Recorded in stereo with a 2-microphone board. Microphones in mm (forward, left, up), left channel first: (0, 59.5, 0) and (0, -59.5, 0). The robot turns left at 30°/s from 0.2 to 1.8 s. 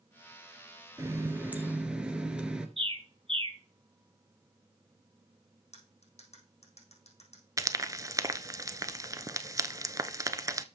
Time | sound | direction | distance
1.0 | a running tap | 25° right (ahead or behind) | 1.4 m
2.8 | a bird | 50° right (ahead or behind) | 1.3 m
5.7 | cutlery clinking | 80° left | 4 m
7.6 | frying | 30° right (ahead or behind) | 0.6 m